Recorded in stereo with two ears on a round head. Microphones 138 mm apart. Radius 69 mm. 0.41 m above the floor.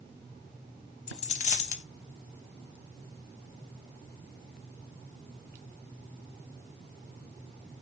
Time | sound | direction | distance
1.1 | a dropped coin | 45° left (ahead or behind) | 0.6 m